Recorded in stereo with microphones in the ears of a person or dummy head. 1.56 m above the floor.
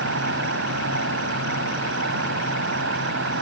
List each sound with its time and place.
0.0 s an insect: 80° right